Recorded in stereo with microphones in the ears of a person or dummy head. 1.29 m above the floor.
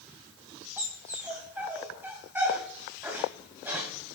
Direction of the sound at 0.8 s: 10° right (ahead or behind).